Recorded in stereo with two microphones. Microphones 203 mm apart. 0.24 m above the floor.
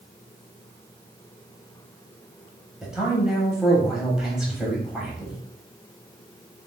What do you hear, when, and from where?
2.8 s a man speaking: centre (ahead or behind), 0.9 m